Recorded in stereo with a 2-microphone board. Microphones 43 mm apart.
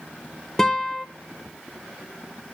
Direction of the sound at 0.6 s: 10° left (ahead or behind).